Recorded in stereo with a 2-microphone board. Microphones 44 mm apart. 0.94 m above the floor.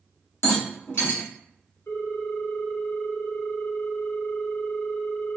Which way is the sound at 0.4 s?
70° left (ahead or behind).